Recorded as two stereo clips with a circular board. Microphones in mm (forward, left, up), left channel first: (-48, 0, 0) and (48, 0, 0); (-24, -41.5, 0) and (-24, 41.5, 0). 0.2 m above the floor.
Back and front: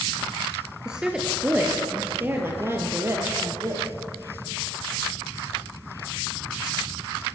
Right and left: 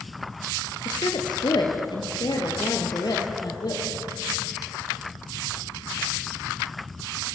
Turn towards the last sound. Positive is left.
turn(degrees=-55)